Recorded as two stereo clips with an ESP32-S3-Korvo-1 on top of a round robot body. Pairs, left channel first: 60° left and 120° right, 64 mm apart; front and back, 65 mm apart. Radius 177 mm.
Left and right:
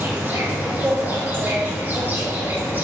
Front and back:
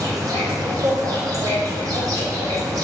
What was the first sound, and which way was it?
An insect, 175° right.